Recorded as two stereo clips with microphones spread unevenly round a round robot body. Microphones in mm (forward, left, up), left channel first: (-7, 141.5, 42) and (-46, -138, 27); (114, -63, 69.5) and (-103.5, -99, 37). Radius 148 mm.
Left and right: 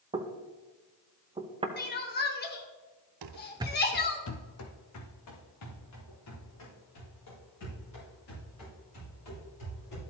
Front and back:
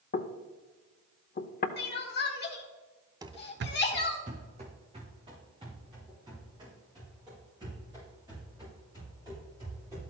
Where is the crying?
40° left, 1.4 m.